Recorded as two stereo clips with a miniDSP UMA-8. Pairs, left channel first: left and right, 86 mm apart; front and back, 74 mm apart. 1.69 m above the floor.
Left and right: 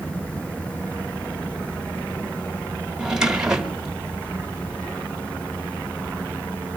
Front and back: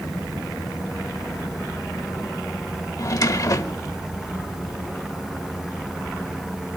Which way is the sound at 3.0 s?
10° right.